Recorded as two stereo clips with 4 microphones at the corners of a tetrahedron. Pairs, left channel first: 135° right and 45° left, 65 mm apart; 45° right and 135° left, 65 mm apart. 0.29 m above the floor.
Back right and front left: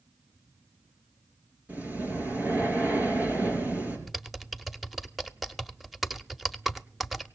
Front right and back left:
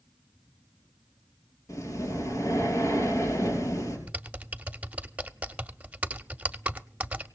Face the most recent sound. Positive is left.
turn(degrees=125)